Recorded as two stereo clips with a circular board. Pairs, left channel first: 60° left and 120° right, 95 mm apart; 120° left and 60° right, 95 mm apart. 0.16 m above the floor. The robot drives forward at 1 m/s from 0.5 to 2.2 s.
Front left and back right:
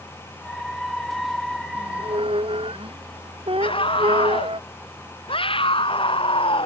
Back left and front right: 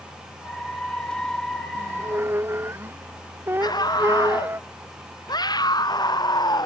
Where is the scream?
75° left.